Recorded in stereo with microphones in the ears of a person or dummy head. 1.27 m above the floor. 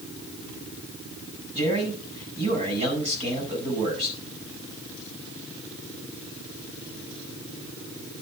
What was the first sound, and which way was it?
A man speaking, 35° right (ahead or behind).